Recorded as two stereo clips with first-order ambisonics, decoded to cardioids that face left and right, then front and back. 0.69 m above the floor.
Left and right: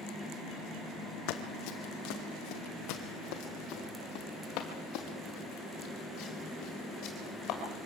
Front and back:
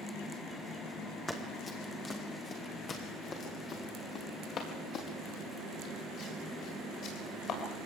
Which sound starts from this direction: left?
Running footsteps, at 1.3 s.